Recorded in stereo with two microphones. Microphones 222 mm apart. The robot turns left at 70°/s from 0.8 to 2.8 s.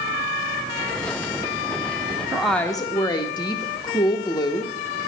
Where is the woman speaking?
170° right, 0.8 m; by 4.7 s 155° left, 0.8 m.